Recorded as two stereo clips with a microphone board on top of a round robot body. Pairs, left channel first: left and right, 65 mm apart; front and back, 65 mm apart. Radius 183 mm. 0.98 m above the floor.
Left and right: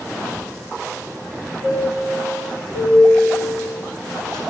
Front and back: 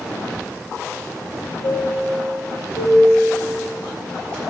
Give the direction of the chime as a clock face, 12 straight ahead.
9 o'clock.